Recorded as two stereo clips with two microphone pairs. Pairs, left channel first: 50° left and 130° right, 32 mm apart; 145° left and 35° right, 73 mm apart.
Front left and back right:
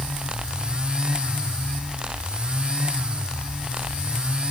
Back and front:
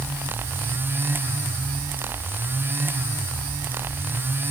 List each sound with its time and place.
Only background noise.